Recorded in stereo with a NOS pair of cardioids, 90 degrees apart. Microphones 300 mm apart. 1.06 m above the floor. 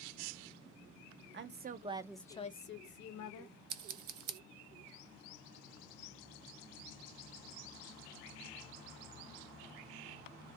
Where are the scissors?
50° right, 0.5 m.